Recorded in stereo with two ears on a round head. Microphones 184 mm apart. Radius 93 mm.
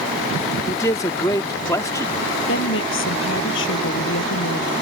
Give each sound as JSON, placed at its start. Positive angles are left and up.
{"t": 0.7, "sound": "a man speaking", "side_deg": 15}
{"t": 2.5, "sound": "a woman speaking", "side_deg": 75}